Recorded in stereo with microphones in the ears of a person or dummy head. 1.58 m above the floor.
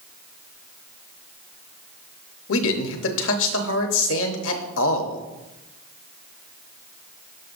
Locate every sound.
2.5 s a man speaking: 75° left (ahead or behind), 0.9 m